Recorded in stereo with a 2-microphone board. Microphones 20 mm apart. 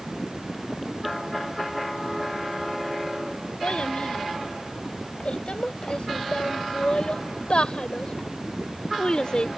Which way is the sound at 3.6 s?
65° left (ahead or behind).